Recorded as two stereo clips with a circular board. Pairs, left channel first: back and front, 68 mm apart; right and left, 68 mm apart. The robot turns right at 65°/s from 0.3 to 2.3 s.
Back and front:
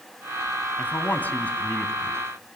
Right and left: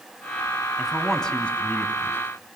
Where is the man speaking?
170° left, 1.7 m; by 2.2 s 95° right, 1.7 m.